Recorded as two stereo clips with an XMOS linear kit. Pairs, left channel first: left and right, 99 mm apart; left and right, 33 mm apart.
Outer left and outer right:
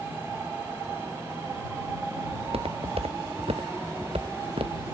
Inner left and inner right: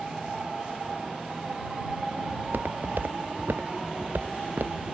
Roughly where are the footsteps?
Right.